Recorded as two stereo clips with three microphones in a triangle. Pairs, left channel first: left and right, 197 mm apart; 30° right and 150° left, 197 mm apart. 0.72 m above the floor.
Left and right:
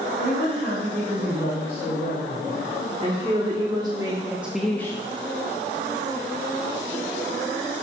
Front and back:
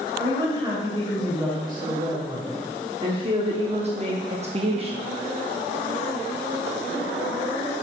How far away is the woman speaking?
About 3.5 m.